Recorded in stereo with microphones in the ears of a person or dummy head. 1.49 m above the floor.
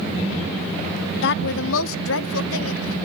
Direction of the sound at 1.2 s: 65° left (ahead or behind).